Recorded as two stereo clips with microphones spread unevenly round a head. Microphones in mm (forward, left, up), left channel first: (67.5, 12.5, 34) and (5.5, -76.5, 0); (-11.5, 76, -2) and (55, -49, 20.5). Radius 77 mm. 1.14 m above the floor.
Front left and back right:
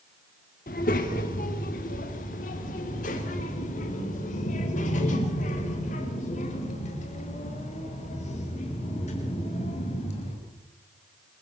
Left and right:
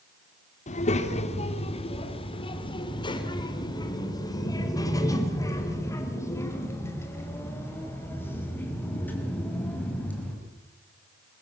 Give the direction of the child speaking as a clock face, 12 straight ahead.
9 o'clock.